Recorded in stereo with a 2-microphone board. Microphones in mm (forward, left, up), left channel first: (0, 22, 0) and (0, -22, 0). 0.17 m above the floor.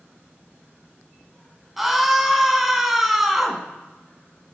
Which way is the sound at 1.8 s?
5° right (ahead or behind).